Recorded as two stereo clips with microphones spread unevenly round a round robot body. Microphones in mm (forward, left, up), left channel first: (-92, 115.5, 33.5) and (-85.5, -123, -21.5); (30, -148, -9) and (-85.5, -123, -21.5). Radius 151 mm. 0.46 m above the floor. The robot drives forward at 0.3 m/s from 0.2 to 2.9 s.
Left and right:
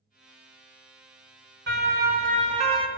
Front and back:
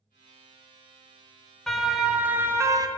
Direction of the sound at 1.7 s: 100° right.